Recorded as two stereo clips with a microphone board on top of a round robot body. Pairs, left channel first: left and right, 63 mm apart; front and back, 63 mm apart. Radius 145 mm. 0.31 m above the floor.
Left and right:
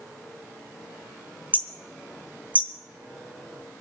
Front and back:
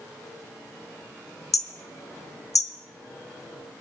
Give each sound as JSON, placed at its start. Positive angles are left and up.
{"t": 1.5, "sound": "hammering", "azimuth_deg": -25, "distance_m": 1.4}